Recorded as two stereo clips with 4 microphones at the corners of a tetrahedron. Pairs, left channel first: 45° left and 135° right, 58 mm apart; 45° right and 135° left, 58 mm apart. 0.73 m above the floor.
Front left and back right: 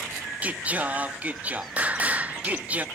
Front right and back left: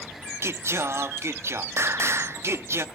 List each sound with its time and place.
0.4 s singing: 160° left, 0.6 m